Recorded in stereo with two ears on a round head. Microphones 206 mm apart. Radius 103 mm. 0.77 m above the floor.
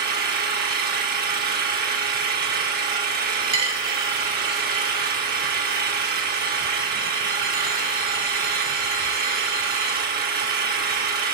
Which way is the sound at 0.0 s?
40° right (ahead or behind).